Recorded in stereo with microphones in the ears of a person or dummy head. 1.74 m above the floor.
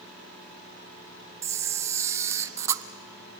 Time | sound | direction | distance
1.4 | a camera shutter | 15° right (ahead or behind) | 0.7 m